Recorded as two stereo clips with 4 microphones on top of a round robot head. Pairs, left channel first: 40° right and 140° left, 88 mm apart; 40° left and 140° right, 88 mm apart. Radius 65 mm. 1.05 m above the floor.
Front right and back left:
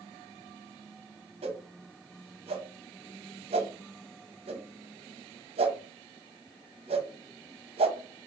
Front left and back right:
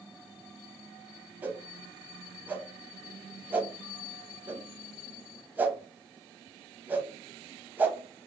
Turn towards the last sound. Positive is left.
turn(degrees=150)